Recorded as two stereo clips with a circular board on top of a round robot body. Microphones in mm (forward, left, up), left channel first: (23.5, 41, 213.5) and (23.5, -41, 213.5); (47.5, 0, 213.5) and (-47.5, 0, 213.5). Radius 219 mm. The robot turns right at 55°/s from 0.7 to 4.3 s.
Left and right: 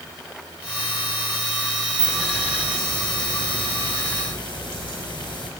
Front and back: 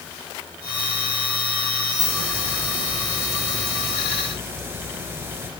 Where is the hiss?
10° right, 4.5 m; by 5.5 s 115° left, 4.5 m.